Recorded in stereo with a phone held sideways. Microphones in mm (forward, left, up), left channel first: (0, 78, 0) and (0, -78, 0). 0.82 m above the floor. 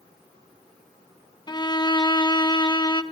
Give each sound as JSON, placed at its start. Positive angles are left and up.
{"t": 1.5, "sound": "a violin", "side_deg": 30, "distance_m": 0.6}